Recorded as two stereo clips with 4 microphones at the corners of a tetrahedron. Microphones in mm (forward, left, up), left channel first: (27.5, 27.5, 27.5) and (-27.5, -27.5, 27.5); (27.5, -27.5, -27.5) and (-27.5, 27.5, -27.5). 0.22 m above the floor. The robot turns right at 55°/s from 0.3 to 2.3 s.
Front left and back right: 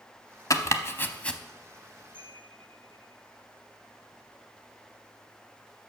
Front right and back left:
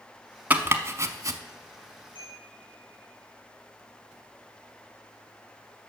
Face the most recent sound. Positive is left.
turn(degrees=70)